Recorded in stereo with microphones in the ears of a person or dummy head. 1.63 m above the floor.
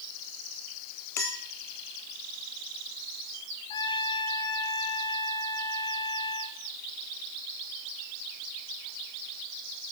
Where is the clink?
15° left (ahead or behind), 0.5 m.